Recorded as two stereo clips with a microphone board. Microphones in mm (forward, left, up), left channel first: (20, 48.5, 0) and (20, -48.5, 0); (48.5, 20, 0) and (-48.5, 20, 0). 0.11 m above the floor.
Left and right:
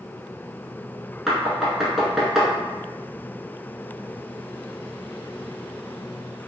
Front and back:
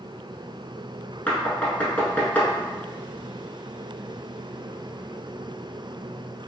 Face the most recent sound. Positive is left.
turn(degrees=-15)